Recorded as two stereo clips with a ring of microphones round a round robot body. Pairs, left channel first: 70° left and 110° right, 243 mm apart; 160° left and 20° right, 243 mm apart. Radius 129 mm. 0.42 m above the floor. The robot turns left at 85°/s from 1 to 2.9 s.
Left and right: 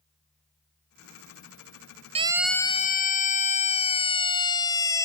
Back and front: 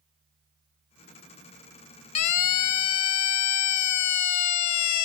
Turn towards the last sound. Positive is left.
turn(degrees=145)